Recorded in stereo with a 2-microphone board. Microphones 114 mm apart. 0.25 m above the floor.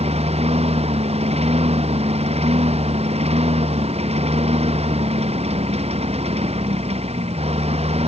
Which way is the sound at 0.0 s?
65° right (ahead or behind).